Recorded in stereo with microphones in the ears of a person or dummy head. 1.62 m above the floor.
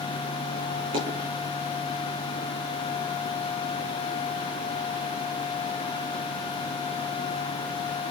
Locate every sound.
0.9 s a dropped coin: 30° right (ahead or behind), 8.5 m